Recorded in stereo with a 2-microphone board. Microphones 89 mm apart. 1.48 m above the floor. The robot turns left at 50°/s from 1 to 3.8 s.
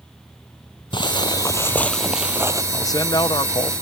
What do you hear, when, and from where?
0.9 s footsteps: 60° left (ahead or behind); by 2.6 s 40° right (ahead or behind)
2.7 s a man speaking: 145° left; by 3.7 s 95° left